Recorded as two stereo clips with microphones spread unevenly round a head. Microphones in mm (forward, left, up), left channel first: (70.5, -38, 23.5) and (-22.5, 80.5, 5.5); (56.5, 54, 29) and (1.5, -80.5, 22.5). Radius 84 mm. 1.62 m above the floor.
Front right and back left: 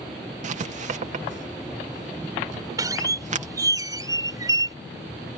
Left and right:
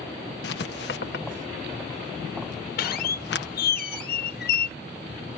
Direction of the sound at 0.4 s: 90° left.